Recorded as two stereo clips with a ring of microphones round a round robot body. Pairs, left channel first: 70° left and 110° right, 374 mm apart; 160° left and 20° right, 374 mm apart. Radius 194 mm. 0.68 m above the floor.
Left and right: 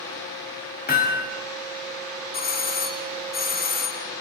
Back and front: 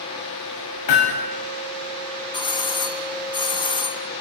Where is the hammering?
135° left, 4.5 m.